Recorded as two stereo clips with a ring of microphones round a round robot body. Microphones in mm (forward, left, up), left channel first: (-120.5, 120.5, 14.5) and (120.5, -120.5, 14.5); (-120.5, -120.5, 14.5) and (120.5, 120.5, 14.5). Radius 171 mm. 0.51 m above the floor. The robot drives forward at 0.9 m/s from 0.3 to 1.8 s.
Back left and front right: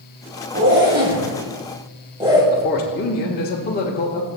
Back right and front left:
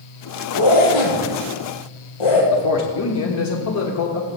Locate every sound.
0.5 s a zipper: 100° right, 2.5 m; by 2.4 s 120° right, 3 m
2.5 s a man speaking: 170° right, 1.1 m